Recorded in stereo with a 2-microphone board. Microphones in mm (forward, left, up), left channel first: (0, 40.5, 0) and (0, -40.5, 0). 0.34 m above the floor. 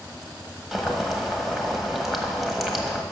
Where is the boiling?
Centre (ahead or behind), 1.3 m.